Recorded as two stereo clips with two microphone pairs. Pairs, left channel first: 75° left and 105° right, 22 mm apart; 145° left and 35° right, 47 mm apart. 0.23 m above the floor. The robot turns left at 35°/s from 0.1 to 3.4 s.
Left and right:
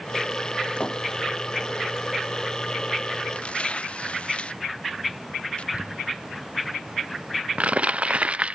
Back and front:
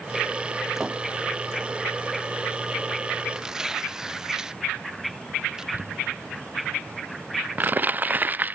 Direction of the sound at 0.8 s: 50° left.